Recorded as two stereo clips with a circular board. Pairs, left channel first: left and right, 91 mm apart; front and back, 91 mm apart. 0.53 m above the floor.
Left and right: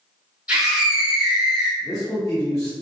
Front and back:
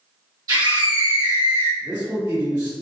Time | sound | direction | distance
0.5 | a scream | 165° right | 1.4 m
1.8 | a man speaking | 140° left | 1.5 m